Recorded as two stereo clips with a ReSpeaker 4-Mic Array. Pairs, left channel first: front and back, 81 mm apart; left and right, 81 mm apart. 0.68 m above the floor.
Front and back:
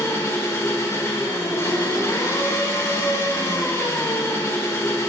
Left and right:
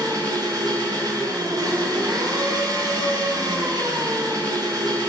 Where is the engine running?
55° right, 1.3 m.